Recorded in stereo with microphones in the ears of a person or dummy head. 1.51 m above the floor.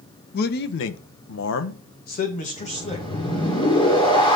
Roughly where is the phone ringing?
I don't hear a phone ringing.